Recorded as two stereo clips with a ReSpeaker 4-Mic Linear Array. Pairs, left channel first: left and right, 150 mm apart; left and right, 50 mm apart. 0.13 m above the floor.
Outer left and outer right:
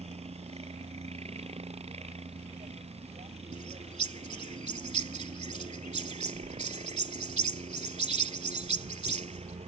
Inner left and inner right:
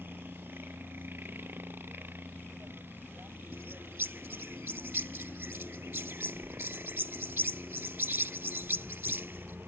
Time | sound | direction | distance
0.0 | a helicopter | 45° right (ahead or behind) | ?
3.5 | a bird | 50° right (ahead or behind) | ?